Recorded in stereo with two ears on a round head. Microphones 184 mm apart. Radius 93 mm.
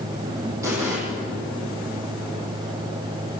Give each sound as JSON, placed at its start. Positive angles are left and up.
{"t": 0.6, "sound": "an explosion", "side_deg": -15, "distance_m": 8.5}